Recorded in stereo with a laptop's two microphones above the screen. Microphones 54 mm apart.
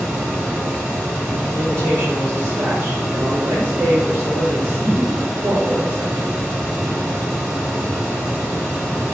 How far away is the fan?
About 2 m.